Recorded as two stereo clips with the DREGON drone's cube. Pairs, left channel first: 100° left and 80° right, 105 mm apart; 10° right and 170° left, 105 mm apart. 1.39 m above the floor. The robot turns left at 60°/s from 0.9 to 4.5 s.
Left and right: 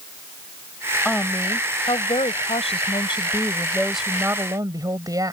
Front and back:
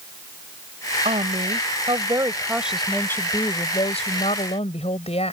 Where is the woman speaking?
175° right; by 5.3 s 25° right.